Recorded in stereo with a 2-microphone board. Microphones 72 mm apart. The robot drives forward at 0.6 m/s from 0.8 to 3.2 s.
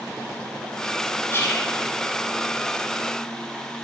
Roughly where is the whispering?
Left.